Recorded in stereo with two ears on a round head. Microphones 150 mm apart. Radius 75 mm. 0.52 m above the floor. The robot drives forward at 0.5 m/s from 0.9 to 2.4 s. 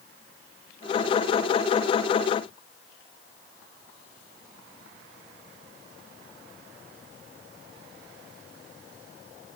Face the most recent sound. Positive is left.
No sound to turn to.